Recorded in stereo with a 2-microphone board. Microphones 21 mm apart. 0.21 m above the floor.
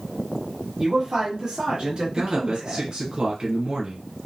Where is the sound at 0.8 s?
25° right (ahead or behind), 1.3 m; by 2.9 s 60° right (ahead or behind), 2.5 m.